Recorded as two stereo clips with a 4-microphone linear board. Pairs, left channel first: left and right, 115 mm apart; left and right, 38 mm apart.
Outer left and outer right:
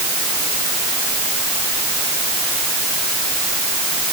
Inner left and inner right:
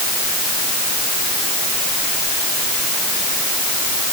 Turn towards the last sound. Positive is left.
No sound to turn to.